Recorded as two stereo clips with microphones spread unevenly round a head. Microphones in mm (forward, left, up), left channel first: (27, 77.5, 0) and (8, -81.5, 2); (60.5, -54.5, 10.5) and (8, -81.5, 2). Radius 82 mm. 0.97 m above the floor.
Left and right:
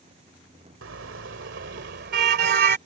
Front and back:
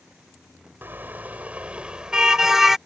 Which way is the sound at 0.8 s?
95° right.